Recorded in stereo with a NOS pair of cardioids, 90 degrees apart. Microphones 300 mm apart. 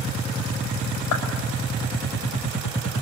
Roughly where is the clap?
Left.